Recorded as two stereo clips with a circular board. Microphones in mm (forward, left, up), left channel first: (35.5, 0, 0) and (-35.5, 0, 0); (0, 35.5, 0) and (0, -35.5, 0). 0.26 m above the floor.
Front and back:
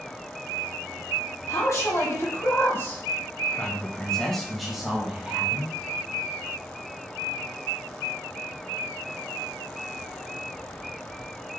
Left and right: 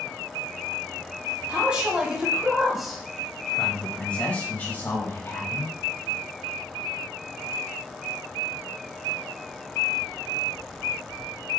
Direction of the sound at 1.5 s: 20° right.